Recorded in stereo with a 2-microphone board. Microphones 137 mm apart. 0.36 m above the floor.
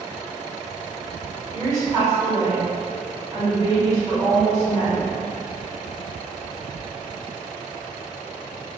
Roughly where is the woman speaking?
Right.